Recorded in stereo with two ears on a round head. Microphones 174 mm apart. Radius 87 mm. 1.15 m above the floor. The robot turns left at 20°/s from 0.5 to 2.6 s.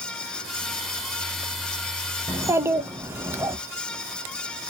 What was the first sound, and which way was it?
A child speaking, 20° right (ahead or behind).